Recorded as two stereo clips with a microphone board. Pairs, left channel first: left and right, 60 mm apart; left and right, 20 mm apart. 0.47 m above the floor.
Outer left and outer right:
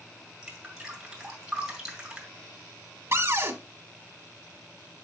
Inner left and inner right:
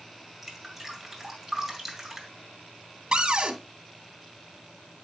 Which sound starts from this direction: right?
A cupboard door, at 3.1 s.